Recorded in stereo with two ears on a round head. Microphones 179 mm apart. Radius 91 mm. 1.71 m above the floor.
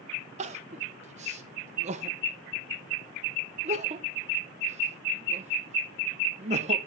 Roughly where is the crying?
Right.